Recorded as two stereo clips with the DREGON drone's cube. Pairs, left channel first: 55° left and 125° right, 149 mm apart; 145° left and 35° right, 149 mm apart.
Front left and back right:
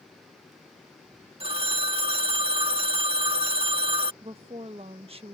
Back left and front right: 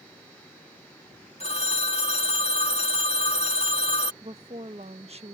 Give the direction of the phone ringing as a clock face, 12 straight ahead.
6 o'clock.